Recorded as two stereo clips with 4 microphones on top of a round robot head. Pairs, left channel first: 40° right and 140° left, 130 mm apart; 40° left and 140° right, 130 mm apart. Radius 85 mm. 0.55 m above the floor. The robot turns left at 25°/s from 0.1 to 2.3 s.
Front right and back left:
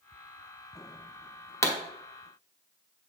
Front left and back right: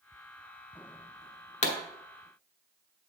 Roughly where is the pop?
Ahead left.